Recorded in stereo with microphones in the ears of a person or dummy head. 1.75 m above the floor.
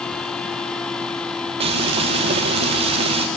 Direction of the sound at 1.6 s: 25° right (ahead or behind).